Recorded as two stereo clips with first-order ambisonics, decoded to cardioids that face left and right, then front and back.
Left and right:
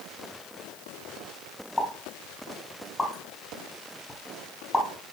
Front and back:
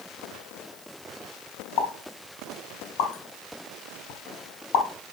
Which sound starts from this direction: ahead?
A pop, at 1.8 s.